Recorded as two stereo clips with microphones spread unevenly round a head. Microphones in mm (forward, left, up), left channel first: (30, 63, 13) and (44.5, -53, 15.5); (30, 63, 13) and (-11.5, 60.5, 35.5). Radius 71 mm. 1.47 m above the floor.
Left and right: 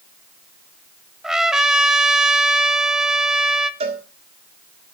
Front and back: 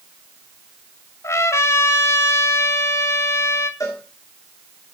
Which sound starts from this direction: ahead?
A trumpet, at 1.2 s.